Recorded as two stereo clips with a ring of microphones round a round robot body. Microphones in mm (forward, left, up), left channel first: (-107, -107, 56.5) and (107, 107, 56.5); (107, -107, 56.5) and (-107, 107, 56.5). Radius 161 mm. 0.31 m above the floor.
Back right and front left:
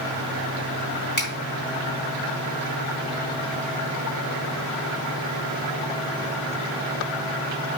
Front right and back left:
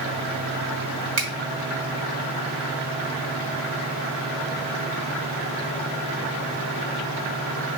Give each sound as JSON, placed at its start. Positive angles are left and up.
{"t": 1.2, "sound": "a finger snap", "azimuth_deg": 175, "distance_m": 2.0}